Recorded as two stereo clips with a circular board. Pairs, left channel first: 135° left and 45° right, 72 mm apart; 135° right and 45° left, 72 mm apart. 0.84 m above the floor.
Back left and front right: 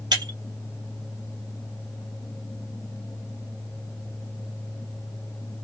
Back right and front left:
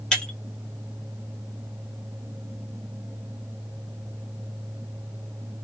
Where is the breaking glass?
55° right, 1.1 m.